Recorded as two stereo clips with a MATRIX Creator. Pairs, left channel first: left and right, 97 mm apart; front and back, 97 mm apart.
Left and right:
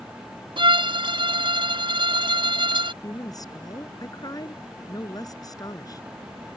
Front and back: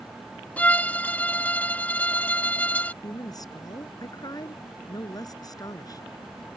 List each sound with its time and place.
0.6 s a violin: 70° right
3.0 s a woman speaking: 45° left